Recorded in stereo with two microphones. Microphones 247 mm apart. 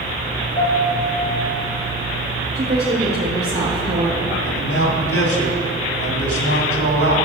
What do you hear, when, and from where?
0.6 s a piano: 55° left (ahead or behind), 4 m
2.5 s a woman speaking: 40° right (ahead or behind), 2 m
4.4 s a man speaking: 65° left (ahead or behind), 2.5 m